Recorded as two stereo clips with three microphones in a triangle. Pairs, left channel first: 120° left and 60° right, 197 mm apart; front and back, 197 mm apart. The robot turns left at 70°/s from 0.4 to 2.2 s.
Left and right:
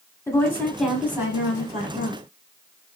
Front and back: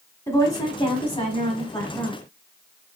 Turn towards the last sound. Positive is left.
turn(degrees=-70)